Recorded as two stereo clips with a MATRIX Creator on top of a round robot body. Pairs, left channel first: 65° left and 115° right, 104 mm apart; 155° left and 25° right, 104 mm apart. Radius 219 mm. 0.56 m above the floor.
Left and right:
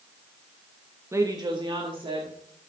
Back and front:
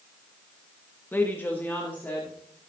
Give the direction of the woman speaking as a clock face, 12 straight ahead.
5 o'clock.